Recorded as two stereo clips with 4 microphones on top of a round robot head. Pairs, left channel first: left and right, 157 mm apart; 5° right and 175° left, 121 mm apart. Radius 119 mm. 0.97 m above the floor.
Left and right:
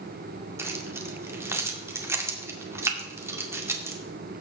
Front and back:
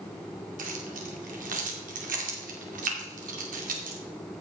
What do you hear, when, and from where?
0.6 s keys jangling: 165° right, 2 m